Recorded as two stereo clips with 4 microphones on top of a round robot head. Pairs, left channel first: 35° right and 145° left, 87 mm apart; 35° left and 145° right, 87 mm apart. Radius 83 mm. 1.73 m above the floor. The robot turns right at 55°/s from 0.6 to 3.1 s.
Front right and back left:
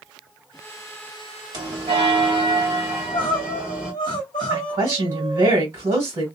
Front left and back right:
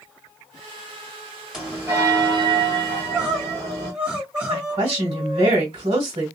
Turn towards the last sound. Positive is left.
turn(degrees=-160)